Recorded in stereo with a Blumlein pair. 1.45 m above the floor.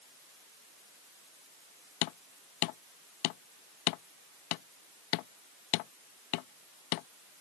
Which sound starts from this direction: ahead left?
Hammering, at 2.0 s.